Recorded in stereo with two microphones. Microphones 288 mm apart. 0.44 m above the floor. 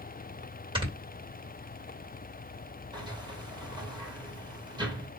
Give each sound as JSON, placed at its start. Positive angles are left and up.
{"t": 0.8, "sound": "snoring", "side_deg": -15, "distance_m": 2.5}
{"t": 2.9, "sound": "a sliding door", "side_deg": -15, "distance_m": 2.5}